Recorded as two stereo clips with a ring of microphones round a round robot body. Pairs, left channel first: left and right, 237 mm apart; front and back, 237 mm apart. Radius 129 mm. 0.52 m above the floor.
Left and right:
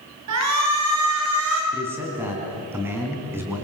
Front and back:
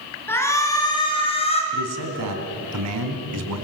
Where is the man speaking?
170° right, 4.5 m.